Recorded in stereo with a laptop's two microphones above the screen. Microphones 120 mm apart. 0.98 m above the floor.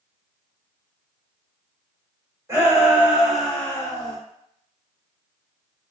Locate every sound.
2.5 s a shout: 25° right (ahead or behind), 1.1 m; by 4.2 s 35° left (ahead or behind), 0.7 m